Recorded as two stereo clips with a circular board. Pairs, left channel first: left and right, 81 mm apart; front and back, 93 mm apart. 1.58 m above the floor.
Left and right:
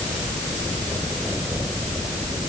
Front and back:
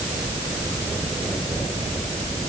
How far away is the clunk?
No clunk in this recording.